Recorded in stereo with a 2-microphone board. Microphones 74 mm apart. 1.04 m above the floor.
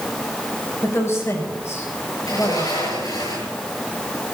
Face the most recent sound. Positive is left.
turn(degrees=55)  # may be behind; listen again after turning